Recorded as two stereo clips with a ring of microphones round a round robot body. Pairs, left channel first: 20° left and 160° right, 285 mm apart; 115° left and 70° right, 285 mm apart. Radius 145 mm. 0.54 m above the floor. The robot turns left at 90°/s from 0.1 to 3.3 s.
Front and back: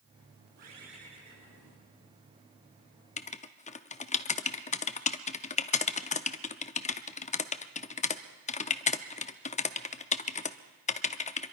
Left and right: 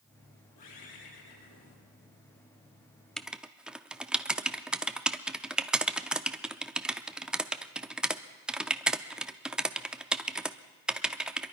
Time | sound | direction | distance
0.6 | a bird | 150° left | 5 m
3.2 | writing | 25° left | 0.7 m